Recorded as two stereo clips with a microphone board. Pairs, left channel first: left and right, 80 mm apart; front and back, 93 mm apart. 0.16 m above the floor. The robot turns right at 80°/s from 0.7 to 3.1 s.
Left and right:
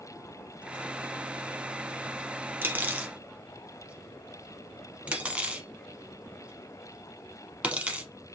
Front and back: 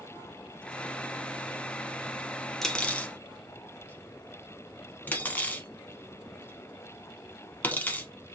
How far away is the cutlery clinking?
About 0.7 m.